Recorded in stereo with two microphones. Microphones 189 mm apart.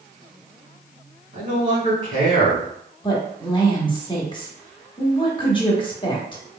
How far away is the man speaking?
About 1.7 m.